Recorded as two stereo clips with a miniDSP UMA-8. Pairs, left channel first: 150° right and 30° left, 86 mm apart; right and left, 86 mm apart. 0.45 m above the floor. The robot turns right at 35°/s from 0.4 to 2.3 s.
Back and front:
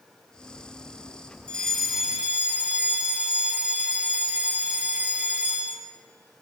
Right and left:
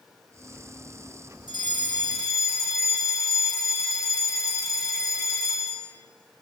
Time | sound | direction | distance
1.5 | a fire alarm | 75° right | 5 m